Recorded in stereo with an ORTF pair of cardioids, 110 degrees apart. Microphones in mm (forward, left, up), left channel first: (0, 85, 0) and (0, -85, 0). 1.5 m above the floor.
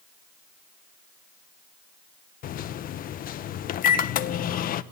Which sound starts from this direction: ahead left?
A microwave, at 2.4 s.